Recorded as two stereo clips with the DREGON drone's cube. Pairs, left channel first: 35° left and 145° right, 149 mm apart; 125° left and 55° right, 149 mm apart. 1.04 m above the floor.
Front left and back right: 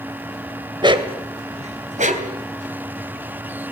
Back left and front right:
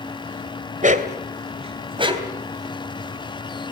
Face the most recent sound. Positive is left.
turn(degrees=-125)